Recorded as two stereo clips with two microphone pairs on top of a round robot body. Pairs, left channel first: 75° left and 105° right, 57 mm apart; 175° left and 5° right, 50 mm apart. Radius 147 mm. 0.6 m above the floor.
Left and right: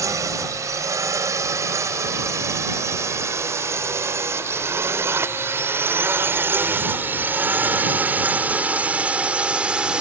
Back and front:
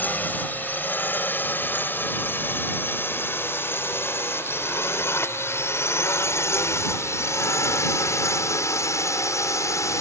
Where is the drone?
130° right; by 10.0 s straight behind.